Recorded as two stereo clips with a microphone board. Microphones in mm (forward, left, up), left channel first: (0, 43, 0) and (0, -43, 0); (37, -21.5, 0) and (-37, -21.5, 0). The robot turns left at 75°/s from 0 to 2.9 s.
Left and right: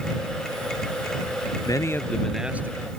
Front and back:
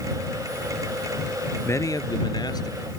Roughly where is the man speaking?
Ahead left.